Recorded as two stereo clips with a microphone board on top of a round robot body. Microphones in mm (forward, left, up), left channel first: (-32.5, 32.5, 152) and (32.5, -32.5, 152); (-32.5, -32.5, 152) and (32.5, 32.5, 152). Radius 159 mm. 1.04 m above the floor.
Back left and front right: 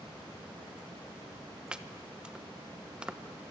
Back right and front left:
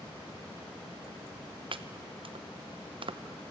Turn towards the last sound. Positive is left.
turn(degrees=35)